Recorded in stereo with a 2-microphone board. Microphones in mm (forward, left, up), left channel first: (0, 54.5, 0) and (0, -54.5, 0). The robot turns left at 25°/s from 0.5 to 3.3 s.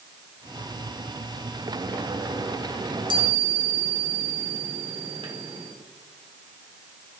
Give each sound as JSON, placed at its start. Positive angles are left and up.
{"t": 2.8, "sound": "a chime", "side_deg": -40, "distance_m": 1.4}